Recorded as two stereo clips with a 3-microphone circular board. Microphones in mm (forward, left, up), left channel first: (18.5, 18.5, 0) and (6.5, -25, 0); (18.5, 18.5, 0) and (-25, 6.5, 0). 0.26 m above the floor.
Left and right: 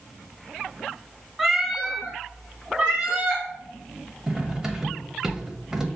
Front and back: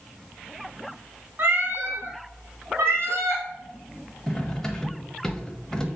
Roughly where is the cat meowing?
Behind.